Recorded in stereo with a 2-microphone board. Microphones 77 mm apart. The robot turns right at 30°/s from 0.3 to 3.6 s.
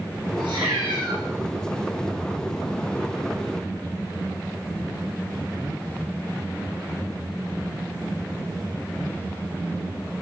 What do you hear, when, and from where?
0.4 s a cat meowing: 85° right, 7.5 m; by 1.2 s 70° right (ahead or behind), 7.5 m